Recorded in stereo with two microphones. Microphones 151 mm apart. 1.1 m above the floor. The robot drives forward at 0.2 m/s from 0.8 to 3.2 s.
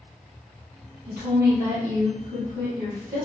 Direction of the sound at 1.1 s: 55° right (ahead or behind).